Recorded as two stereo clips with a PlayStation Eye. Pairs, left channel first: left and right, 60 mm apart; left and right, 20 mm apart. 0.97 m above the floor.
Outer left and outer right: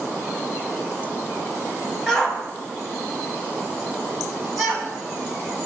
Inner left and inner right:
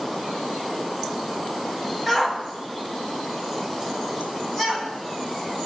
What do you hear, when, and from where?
2.1 s a shout: 10° left (ahead or behind), 4.5 m; by 4.9 s centre (ahead or behind), 7.5 m